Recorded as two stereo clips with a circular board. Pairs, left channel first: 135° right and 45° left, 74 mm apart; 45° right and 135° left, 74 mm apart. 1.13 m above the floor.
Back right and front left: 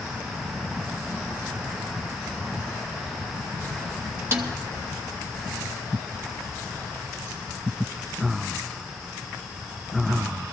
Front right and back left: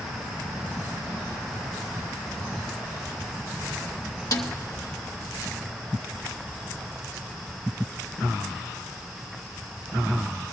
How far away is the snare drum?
About 1.0 m.